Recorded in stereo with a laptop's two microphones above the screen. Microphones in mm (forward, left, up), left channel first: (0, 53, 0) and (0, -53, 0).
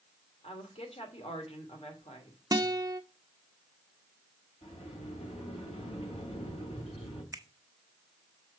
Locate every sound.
0.4 s a woman speaking: 75° left (ahead or behind), 2.5 m
2.5 s a guitar: 40° right (ahead or behind), 0.7 m
4.6 s a sliding door: 80° left, 4 m
7.3 s a finger snap: 35° right (ahead or behind), 0.9 m